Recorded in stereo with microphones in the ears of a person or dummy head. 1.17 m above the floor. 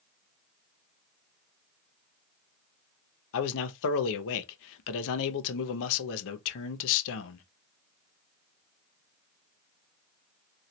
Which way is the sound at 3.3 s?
70° left (ahead or behind).